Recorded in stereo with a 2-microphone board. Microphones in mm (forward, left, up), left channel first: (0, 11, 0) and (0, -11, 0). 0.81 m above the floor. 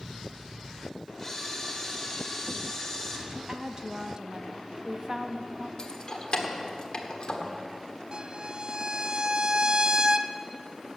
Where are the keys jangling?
40° left (ahead or behind), 1.4 m.